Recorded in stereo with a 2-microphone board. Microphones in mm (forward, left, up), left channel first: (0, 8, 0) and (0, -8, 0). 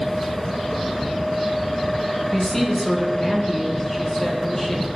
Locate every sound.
2.3 s a woman speaking: 15° left (ahead or behind), 2.5 m